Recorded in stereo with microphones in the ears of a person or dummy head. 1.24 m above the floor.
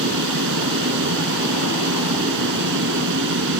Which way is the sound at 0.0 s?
55° right (ahead or behind).